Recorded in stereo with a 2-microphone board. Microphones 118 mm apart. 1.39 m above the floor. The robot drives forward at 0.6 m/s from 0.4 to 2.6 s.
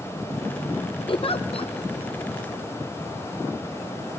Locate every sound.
1.1 s a giggle: 50° left (ahead or behind), 0.6 m